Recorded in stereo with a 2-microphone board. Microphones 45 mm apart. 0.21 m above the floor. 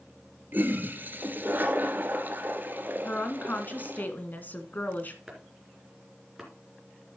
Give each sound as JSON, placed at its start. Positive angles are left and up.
{"t": 0.5, "sound": "a toilet flushing", "side_deg": -45, "distance_m": 1.5}
{"t": 3.0, "sound": "a woman speaking", "side_deg": 45, "distance_m": 1.7}
{"t": 5.3, "sound": "chopping", "side_deg": -10, "distance_m": 3.0}